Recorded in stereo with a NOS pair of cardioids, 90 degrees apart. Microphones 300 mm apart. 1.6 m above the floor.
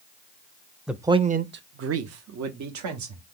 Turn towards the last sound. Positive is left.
turn(degrees=-75)